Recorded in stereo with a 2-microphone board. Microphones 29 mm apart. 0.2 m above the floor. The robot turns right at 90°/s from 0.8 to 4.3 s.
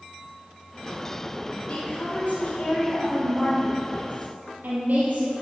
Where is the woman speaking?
50° left, 5 m; by 5.3 s 75° right, 5 m.